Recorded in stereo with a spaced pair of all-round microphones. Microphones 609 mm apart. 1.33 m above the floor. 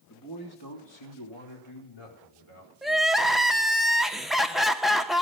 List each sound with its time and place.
0.1 s a man speaking: 30° left (ahead or behind), 2.5 m; by 3.5 s 60° left (ahead or behind), 6 m
2.8 s crying: centre (ahead or behind), 0.8 m